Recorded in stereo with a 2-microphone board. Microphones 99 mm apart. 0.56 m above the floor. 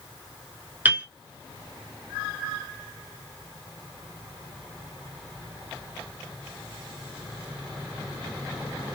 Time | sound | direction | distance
0.8 | a piano | 20° right (ahead or behind) | 0.9 m